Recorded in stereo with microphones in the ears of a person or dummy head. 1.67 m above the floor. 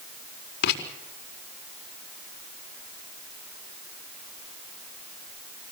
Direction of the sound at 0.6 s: 65° left (ahead or behind).